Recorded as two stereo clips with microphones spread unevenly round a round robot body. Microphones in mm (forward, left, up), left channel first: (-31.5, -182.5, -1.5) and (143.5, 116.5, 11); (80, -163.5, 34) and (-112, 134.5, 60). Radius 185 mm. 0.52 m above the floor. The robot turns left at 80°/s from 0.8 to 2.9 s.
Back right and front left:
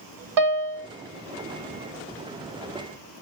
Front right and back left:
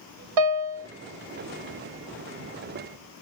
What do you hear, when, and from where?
0.4 s a piano: 95° left, 0.8 m; by 0.9 s 90° left, 0.8 m